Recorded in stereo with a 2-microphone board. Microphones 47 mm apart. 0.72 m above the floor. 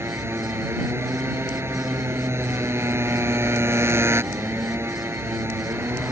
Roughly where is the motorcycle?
Right.